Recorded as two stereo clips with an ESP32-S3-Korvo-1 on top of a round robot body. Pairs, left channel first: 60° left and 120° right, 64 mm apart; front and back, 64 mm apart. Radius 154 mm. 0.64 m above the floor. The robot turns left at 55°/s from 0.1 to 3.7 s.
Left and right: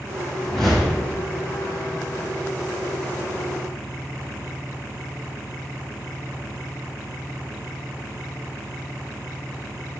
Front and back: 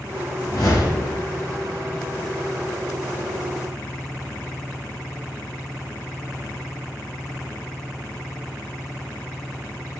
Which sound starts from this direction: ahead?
A whoosh, at 0.4 s.